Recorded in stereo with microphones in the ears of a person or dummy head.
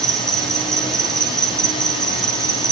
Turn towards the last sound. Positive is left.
turn(degrees=5)  # may be behind; listen again after turning